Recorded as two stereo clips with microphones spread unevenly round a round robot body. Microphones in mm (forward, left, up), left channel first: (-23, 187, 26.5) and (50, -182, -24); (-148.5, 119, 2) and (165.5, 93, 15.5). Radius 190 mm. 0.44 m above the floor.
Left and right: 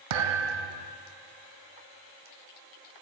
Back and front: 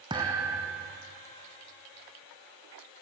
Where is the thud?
85° right, 1.6 m.